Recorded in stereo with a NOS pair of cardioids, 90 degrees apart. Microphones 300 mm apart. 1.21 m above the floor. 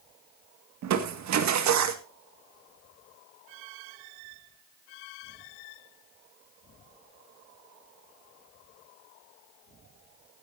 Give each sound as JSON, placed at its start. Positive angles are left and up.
{"t": 0.8, "sound": "crushing", "azimuth_deg": -70, "distance_m": 1.9}